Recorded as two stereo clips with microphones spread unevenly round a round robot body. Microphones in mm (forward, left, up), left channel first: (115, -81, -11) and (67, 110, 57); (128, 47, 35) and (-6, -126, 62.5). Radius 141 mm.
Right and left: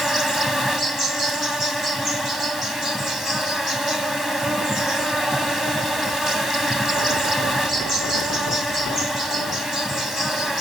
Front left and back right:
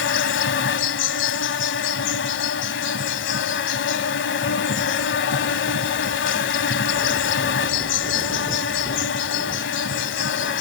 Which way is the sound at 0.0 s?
40° left.